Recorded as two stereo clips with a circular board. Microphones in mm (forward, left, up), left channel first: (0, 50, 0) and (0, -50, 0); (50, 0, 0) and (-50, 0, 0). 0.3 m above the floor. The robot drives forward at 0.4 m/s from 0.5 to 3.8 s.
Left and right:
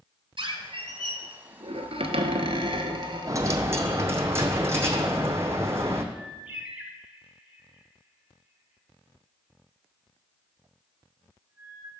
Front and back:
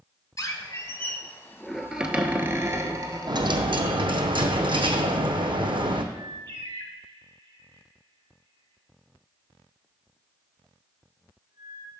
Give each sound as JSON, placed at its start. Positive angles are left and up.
{"t": 0.4, "sound": "a squeak", "azimuth_deg": -60, "distance_m": 0.9}
{"t": 3.3, "sound": "a dropped coin", "azimuth_deg": -145, "distance_m": 0.6}
{"t": 6.1, "sound": "a bird", "azimuth_deg": -165, "distance_m": 0.8}